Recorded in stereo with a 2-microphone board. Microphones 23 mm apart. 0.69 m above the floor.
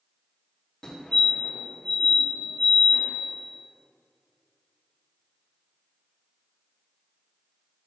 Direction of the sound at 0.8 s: 45° left (ahead or behind).